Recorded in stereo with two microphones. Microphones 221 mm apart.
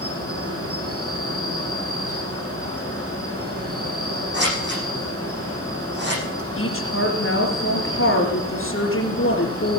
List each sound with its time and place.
0.0 s an insect: 70° right (ahead or behind), 5.5 m
4.3 s scissors: 50° right (ahead or behind), 10 m
6.6 s a woman speaking: 65° left (ahead or behind), 3.5 m